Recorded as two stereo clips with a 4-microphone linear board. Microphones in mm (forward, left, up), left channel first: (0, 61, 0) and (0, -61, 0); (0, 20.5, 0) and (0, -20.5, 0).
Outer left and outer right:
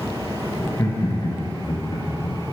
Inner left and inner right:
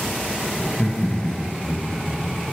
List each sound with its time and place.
0.6 s laughter: 20° left (ahead or behind), 1.3 m; by 2.4 s 50° left (ahead or behind), 1.8 m